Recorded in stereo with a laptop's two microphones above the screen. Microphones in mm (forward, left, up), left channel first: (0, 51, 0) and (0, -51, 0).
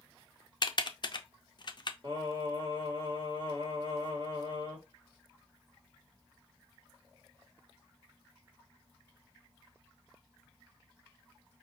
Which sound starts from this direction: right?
Singing, at 2.0 s.